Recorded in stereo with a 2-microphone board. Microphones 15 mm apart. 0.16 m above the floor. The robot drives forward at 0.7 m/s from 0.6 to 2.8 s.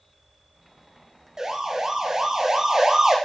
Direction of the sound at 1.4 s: 45° right (ahead or behind).